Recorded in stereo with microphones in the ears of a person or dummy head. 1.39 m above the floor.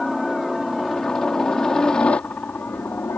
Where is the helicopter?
5° right (ahead or behind); by 3.2 s 10° left (ahead or behind).